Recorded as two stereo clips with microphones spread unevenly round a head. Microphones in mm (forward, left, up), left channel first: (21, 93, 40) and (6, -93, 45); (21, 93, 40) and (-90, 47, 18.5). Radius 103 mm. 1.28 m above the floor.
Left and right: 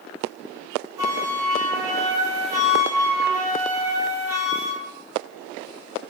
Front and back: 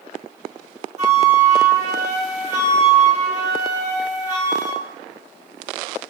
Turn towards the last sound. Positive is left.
turn(degrees=-170)